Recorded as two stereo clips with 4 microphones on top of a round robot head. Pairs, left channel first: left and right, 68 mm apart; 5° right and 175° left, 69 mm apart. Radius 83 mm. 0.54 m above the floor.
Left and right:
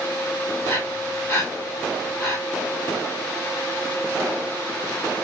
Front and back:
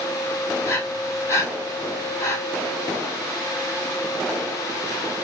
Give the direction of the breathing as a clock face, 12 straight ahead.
11 o'clock.